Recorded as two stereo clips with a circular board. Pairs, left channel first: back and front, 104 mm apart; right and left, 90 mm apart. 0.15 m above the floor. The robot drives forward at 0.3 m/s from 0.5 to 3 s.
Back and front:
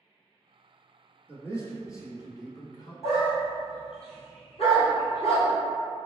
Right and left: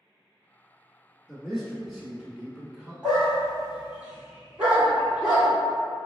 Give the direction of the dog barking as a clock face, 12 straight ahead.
6 o'clock.